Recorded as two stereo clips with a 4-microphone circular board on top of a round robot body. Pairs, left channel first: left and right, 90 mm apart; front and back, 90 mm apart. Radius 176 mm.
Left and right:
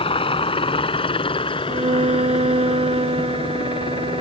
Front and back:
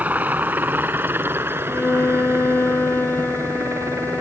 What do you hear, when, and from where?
0.0 s a helicopter: 105° left; by 4.2 s 120° left
1.7 s a violin: 75° right